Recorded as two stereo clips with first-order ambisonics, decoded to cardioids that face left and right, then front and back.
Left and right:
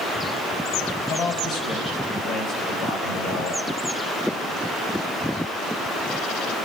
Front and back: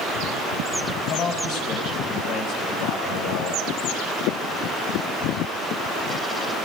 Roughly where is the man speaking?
Ahead left.